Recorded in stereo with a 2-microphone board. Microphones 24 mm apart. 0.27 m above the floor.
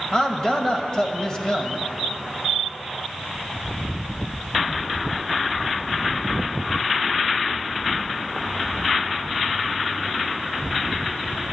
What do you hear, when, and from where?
0.1 s a man speaking: 25° left (ahead or behind), 1.0 m